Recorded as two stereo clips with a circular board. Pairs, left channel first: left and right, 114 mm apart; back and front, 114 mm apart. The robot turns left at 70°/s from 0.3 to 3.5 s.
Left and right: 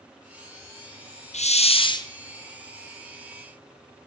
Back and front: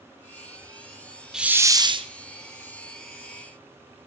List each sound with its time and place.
1.3 s a hiss: 85° left, 0.9 m; by 2.1 s 35° left, 0.9 m